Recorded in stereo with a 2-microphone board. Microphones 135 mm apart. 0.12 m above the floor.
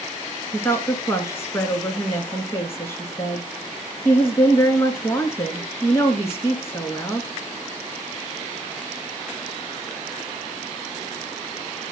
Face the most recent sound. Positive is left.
turn(degrees=20)  # may be behind; listen again after turning